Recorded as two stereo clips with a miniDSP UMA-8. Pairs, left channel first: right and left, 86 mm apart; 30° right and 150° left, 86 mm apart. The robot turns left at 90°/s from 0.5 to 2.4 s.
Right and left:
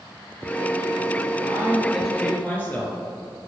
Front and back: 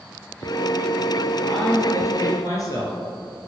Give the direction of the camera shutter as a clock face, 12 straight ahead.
I don't hear a camera shutter.